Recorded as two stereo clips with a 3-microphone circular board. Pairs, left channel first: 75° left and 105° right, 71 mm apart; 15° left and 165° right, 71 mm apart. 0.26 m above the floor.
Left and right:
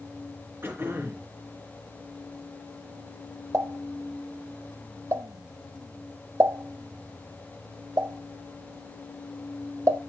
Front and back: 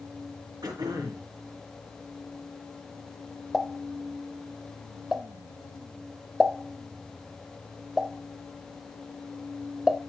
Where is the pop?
80° right, 0.5 m.